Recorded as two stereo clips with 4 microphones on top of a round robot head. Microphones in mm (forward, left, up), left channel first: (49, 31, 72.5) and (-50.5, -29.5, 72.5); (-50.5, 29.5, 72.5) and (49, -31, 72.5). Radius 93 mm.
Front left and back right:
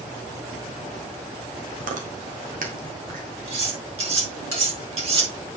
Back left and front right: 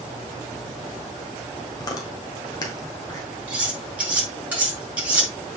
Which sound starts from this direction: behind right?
Chewing, at 1.8 s.